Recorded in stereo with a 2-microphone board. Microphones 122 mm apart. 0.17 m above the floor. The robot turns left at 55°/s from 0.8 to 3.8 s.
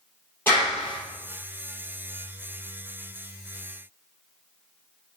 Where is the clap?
15° left (ahead or behind), 3 m; by 1.0 s 25° left (ahead or behind), 3 m.